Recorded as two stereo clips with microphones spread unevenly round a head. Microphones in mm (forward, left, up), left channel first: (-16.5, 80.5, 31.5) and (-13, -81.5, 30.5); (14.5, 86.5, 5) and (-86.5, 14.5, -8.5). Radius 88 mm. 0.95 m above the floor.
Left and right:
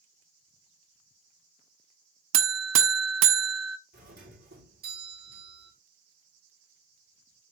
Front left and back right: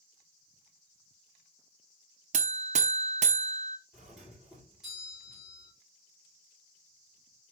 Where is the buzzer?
90° right, 0.8 m.